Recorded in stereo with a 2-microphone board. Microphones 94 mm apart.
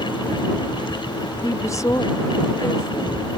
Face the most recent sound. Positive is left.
turn(degrees=35)  # may be behind; listen again after turning